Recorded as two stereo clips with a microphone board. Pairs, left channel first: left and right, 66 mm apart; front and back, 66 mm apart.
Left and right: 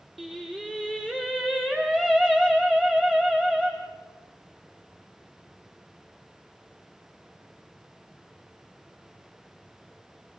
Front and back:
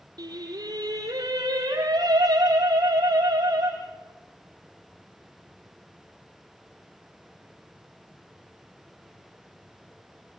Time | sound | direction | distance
0.2 | singing | straight behind | 4.5 m